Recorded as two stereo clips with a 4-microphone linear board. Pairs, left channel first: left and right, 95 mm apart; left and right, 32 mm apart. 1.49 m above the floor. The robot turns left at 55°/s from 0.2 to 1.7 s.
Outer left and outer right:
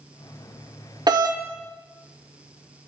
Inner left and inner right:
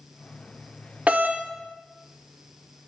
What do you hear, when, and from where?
1.1 s a doorbell: 45° right (ahead or behind), 0.9 m; by 1.4 s 60° right (ahead or behind), 0.9 m